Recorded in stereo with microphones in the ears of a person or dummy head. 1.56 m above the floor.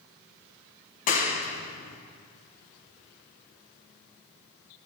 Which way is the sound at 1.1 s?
50° left (ahead or behind).